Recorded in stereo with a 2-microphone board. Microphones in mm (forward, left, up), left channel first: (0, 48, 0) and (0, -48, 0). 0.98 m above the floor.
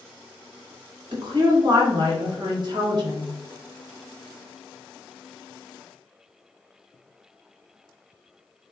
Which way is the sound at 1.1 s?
50° right (ahead or behind).